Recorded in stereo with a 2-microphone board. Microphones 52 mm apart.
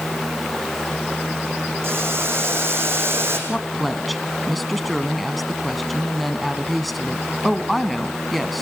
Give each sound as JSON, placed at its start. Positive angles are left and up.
{"t": 1.8, "sound": "boiling", "side_deg": -55, "distance_m": 5.5}
{"t": 3.5, "sound": "a woman speaking", "side_deg": 0, "distance_m": 1.3}